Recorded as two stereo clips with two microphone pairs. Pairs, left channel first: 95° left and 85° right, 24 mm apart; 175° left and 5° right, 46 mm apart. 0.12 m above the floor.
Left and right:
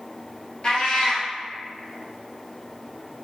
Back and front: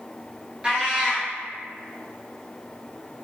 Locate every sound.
0.6 s a cat meowing: 60° left, 0.8 m